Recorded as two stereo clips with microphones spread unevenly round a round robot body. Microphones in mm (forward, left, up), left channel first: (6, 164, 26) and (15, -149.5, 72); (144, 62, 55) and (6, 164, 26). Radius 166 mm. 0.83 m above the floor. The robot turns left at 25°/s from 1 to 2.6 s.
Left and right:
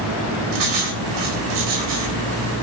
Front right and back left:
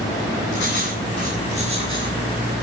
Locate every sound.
0.5 s writing: 90° right, 4 m; by 2.2 s 120° right, 4 m